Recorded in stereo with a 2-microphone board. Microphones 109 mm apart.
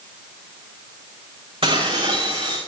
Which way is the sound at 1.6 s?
60° right (ahead or behind).